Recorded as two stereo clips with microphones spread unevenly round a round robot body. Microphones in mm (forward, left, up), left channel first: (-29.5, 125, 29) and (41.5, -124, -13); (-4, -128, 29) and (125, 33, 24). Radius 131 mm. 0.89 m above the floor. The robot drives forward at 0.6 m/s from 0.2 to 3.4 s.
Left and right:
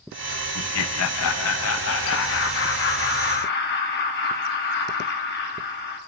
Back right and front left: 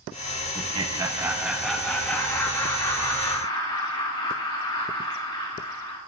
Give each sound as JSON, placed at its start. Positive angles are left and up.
{"t": 0.6, "sound": "laughter", "azimuth_deg": 100, "distance_m": 1.0}